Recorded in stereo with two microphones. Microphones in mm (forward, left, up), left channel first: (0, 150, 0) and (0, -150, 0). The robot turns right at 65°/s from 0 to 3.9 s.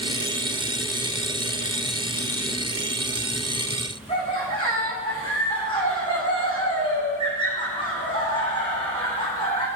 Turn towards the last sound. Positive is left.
turn(degrees=15)  # may be behind; listen again after turning